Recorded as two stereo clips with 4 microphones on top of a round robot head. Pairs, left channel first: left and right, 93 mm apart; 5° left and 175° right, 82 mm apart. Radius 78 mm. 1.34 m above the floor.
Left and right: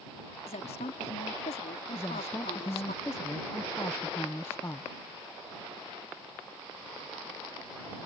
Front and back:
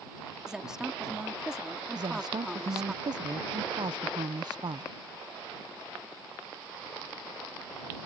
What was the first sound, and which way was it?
A woman speaking, 105° left.